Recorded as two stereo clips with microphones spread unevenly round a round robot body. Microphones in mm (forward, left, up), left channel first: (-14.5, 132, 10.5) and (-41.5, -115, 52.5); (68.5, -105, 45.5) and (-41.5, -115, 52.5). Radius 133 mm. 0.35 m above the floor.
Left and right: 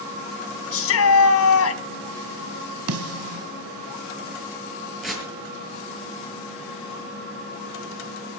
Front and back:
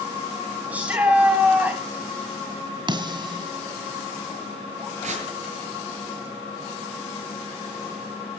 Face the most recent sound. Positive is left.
turn(degrees=175)